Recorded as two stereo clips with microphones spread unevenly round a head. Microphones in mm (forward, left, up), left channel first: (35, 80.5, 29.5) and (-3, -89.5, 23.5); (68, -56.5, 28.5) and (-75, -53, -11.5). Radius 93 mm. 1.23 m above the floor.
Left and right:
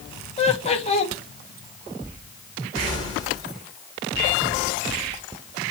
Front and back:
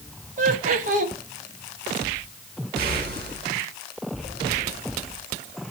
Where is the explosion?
135° left, 5 m.